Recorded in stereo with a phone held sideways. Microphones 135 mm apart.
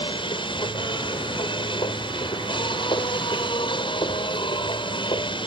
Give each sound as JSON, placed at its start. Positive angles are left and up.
{"t": 0.0, "sound": "a machine running", "side_deg": 40}